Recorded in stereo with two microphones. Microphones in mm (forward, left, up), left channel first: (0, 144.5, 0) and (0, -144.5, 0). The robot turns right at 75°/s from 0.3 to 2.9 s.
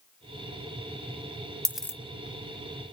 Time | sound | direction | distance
1.6 | a dropped coin | 10° right (ahead or behind) | 0.7 m